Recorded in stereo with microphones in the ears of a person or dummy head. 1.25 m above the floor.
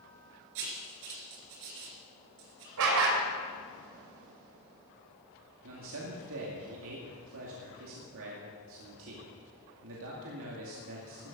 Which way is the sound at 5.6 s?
70° right (ahead or behind).